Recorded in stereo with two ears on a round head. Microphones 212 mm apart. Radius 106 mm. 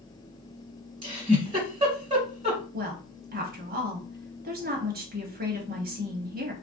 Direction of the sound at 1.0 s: 20° right (ahead or behind).